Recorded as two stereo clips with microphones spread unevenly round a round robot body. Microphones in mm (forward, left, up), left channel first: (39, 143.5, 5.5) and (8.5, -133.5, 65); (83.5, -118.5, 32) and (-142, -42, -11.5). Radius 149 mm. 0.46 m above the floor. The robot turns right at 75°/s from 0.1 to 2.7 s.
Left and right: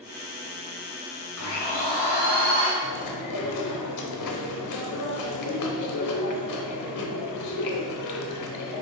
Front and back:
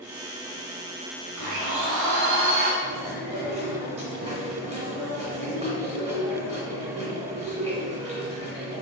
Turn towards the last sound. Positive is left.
turn(degrees=95)